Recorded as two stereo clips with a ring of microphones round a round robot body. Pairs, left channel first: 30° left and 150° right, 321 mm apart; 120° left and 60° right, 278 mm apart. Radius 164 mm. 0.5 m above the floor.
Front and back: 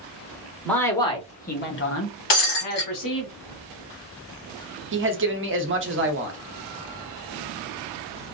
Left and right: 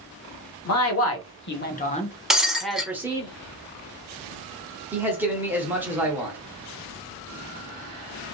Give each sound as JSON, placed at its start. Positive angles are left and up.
{"t": 0.7, "sound": "a man speaking", "azimuth_deg": 115, "distance_m": 1.4}
{"t": 2.3, "sound": "breaking glass", "azimuth_deg": 30, "distance_m": 1.8}
{"t": 4.9, "sound": "a man speaking", "azimuth_deg": -140, "distance_m": 1.0}